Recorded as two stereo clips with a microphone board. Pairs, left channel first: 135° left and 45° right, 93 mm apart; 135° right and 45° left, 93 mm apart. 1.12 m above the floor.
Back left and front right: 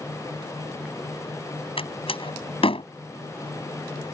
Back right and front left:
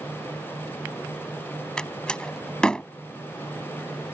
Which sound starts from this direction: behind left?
A door slam, at 1.8 s.